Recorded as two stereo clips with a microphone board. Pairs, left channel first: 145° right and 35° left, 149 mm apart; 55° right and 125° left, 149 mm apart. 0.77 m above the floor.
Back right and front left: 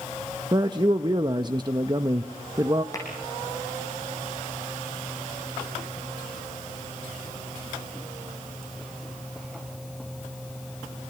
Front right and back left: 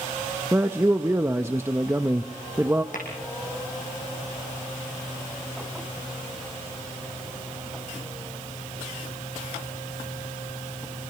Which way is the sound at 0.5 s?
65° left.